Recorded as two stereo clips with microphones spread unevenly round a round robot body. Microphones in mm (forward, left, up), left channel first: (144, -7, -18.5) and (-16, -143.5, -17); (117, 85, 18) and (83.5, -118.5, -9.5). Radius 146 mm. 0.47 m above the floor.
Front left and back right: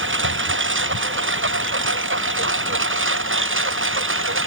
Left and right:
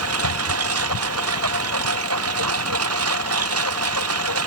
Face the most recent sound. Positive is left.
turn(degrees=-115)